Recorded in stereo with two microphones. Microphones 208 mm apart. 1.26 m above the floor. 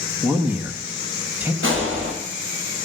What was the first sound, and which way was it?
A man speaking, 10° right (ahead or behind).